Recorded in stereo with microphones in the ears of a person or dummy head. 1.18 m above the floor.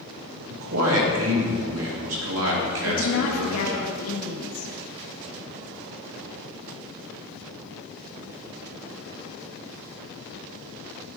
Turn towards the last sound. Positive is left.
turn(degrees=75)  # may be behind; listen again after turning